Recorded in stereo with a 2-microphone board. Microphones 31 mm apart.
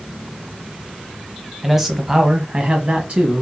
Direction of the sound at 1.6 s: 10° right (ahead or behind).